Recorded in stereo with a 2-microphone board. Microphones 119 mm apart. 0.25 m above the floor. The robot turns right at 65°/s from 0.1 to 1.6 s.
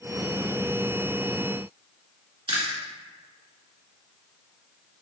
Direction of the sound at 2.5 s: 50° right (ahead or behind).